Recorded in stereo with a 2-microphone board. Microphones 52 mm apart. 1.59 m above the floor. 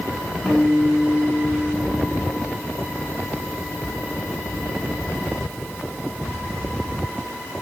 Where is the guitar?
5° left (ahead or behind), 4 m.